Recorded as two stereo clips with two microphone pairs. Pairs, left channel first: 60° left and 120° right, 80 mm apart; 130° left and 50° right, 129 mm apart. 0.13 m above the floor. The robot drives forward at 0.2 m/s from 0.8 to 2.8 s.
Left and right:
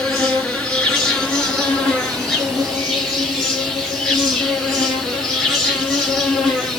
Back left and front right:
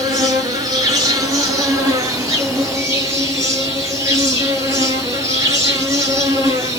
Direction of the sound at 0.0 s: 20° right.